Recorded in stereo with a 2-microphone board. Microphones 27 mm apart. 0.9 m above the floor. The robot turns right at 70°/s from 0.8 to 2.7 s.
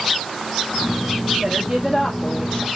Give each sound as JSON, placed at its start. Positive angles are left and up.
{"t": 1.4, "sound": "a woman speaking", "azimuth_deg": -35, "distance_m": 1.3}